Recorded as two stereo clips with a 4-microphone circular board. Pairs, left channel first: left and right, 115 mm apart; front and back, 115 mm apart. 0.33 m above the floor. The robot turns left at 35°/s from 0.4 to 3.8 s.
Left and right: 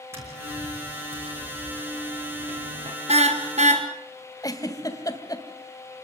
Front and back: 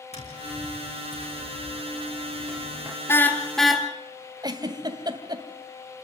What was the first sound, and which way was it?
Tapping, 20° right.